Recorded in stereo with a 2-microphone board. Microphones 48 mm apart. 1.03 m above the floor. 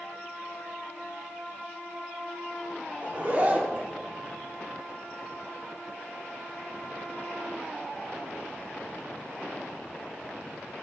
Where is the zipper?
35° right (ahead or behind), 1.9 m.